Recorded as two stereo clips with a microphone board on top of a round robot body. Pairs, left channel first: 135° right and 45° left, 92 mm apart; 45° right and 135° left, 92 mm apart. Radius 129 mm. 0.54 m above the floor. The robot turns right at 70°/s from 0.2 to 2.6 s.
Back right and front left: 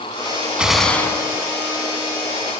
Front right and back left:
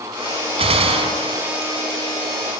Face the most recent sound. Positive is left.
turn(degrees=-95)